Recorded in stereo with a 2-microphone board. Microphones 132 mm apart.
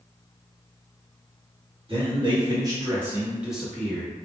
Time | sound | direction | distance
1.9 | a man speaking | 40° right (ahead or behind) | 1.1 m